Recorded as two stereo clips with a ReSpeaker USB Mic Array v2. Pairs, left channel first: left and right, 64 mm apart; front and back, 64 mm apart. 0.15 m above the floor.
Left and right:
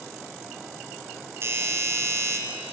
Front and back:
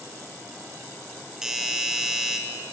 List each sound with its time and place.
1.4 s a doorbell: 100° right, 3 m